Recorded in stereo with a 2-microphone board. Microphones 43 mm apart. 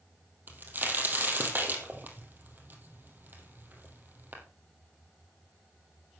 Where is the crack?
50° right (ahead or behind), 2.5 m.